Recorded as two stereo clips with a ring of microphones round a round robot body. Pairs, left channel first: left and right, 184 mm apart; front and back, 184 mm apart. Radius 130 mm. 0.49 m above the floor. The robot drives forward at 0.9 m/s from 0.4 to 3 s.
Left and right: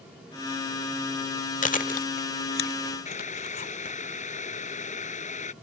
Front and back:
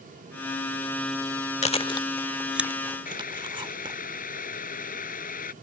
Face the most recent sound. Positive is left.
turn(degrees=40)